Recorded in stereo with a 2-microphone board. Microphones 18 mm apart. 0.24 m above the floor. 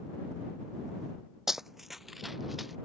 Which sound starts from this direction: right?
Running footsteps, at 1.5 s.